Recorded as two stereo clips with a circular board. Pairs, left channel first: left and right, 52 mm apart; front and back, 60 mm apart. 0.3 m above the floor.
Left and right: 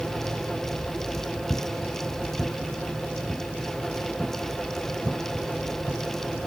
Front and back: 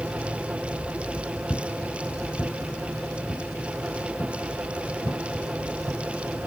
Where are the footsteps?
50° left, 0.9 m; by 6.5 s 10° left, 3 m.